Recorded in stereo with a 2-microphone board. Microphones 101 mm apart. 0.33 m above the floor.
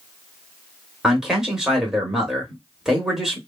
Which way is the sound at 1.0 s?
5° right (ahead or behind).